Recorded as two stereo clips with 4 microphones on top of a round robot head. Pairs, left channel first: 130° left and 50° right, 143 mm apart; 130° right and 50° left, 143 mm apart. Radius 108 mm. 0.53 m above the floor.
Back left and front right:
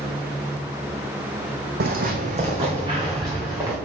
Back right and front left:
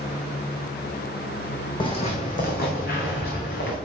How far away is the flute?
I don't hear a flute.